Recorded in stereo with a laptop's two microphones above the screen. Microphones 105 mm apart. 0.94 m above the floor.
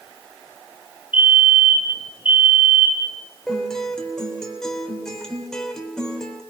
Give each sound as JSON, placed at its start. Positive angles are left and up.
{"t": 1.1, "sound": "a fire alarm", "side_deg": 55, "distance_m": 3.0}
{"t": 3.5, "sound": "a guitar", "side_deg": 5, "distance_m": 3.5}